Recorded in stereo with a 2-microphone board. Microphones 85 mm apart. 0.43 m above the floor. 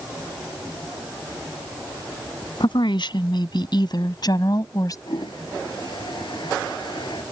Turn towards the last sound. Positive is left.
turn(degrees=60)  # may be behind; listen again after turning